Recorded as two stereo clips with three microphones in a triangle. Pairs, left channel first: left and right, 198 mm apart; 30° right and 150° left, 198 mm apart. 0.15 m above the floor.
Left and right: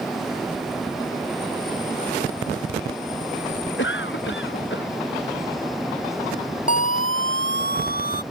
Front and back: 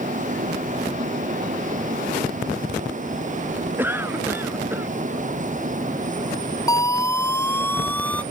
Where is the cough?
70° left.